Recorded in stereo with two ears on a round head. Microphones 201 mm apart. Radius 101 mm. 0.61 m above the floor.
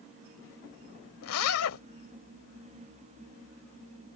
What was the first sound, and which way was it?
A zipper, 75° left (ahead or behind).